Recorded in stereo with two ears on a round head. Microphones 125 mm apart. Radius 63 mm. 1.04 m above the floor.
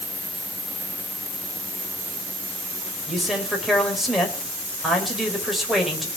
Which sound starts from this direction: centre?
A man speaking, at 3.1 s.